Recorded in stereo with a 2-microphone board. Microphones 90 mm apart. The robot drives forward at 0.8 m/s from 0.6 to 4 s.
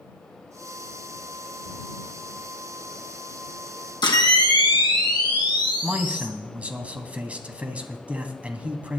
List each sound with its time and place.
4.0 s a camera shutter: 55° left (ahead or behind), 2 m
5.8 s a man speaking: 15° right (ahead or behind), 1.0 m